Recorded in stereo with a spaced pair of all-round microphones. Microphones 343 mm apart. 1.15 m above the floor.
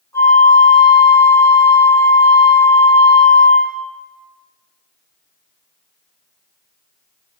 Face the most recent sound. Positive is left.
turn(degrees=10)  # may be behind; listen again after turning